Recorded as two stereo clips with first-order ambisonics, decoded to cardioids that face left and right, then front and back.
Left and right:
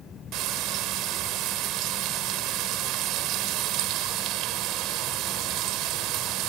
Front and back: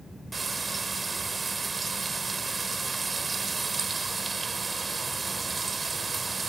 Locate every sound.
0.3 s frying: 105° right